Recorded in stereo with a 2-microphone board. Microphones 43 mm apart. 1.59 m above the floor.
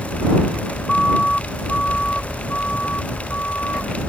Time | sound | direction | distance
0.9 | a siren | 15° left (ahead or behind) | ?